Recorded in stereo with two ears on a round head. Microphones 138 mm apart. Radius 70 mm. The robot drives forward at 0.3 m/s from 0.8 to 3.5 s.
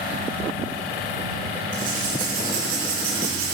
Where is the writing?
60° right (ahead or behind), 4.5 m; by 3.6 s 70° right (ahead or behind), 4 m.